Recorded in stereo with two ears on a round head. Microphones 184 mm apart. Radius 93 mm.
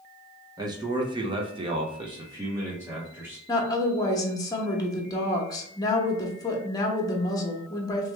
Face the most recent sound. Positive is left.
turn(degrees=20)  # may be behind; listen again after turning